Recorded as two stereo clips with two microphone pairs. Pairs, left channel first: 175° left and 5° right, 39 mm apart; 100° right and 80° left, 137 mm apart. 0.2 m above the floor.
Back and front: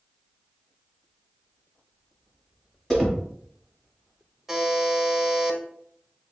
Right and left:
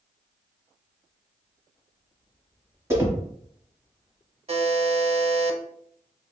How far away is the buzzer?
About 0.5 m.